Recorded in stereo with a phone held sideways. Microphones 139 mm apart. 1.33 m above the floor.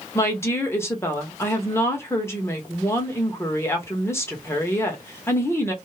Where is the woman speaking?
20° left (ahead or behind), 1.0 m.